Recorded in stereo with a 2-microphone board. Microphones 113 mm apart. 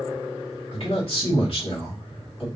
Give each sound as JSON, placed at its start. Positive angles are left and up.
{"t": 0.7, "sound": "a man speaking", "side_deg": 55, "distance_m": 2.0}